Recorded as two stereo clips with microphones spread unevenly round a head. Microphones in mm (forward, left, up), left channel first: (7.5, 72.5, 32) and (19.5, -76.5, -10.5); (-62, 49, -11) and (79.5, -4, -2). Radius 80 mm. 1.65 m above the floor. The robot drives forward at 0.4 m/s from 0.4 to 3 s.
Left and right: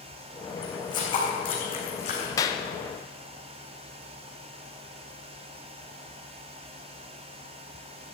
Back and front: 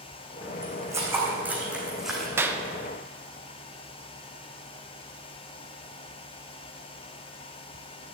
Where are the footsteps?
45° left, 4 m; by 2.3 s 70° left, 3.5 m.